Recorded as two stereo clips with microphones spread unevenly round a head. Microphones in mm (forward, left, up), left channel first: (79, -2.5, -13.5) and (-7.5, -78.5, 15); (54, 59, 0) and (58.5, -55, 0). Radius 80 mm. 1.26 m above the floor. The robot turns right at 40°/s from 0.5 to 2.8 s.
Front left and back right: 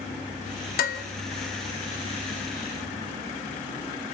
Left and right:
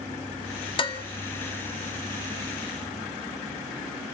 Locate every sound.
0.8 s dishes clattering: 45° left, 1.8 m; by 1.0 s 55° left, 1.8 m